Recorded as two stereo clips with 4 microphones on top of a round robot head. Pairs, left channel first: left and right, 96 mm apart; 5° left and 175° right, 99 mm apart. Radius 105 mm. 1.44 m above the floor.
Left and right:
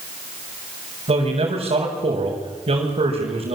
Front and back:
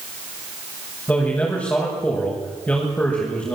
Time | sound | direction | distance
1.1 | a man speaking | 70° right | 6.5 m